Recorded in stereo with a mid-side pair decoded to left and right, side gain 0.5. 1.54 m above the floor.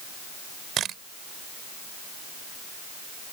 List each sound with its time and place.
0.8 s a camera shutter: 60° right